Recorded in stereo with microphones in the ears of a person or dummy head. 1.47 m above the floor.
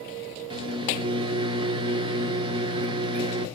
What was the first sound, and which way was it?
A microwave, 25° right (ahead or behind).